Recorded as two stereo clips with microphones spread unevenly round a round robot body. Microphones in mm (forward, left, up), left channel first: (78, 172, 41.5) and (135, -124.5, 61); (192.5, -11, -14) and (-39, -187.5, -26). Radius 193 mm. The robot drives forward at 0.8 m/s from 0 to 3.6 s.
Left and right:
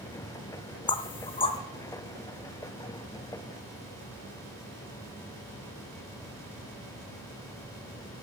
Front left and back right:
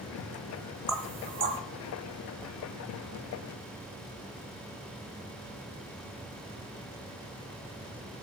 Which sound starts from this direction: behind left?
Knocking, at 0.9 s.